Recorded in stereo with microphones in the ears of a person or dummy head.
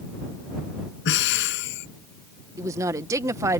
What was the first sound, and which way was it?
Breathing, 65° left (ahead or behind).